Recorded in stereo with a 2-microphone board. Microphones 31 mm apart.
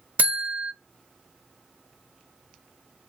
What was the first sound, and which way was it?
A buzzer, 70° right (ahead or behind).